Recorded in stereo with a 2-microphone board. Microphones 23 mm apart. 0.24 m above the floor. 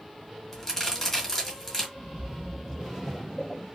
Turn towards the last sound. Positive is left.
turn(degrees=10)  # may be behind; listen again after turning